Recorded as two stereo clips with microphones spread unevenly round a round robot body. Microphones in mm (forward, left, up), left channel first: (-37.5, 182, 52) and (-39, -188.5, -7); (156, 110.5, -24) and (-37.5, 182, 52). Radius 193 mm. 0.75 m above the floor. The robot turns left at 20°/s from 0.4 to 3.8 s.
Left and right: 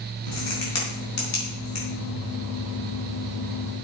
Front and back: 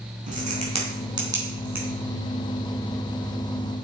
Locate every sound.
0.3 s a crack: 105° left, 5 m; by 1.9 s 75° left, 5 m